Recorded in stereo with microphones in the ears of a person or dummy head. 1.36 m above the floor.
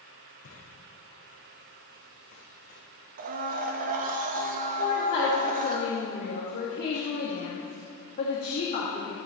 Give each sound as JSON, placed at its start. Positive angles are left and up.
{"t": 0.4, "sound": "footsteps", "side_deg": 60, "distance_m": 5.5}
{"t": 3.2, "sound": "a blender", "side_deg": -40, "distance_m": 1.0}
{"t": 4.8, "sound": "a woman speaking", "side_deg": 50, "distance_m": 2.5}